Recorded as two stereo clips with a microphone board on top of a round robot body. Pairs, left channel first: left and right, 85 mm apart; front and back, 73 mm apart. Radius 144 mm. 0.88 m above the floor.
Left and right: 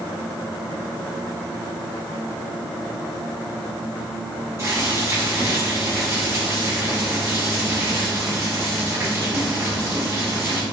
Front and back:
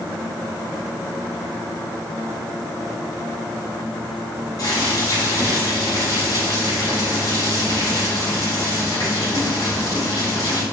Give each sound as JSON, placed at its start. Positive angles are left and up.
{"t": 4.6, "sound": "boiling", "azimuth_deg": -30, "distance_m": 3.5}